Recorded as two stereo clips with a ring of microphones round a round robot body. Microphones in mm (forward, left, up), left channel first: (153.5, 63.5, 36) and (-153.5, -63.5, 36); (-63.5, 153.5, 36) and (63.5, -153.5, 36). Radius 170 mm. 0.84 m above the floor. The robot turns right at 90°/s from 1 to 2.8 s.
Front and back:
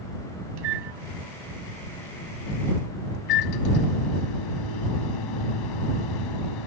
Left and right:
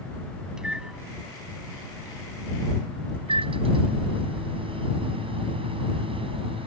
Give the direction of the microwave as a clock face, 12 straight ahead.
5 o'clock.